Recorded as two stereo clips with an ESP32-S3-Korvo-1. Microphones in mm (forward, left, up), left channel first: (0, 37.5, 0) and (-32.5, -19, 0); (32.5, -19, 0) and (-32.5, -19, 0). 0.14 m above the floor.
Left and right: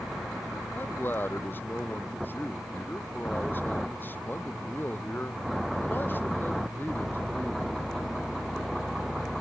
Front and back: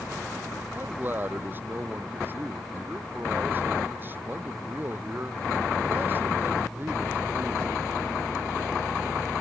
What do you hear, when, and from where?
0.7 s a man speaking: 120° left